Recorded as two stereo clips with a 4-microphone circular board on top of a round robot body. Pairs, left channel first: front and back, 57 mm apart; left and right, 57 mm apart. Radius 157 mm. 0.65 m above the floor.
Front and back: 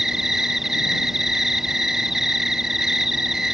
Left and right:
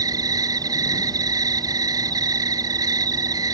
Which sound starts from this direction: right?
An insect, at 0.0 s.